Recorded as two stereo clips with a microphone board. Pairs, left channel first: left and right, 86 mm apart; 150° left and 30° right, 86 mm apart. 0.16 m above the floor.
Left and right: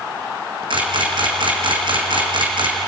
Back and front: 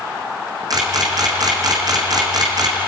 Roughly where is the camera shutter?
Right.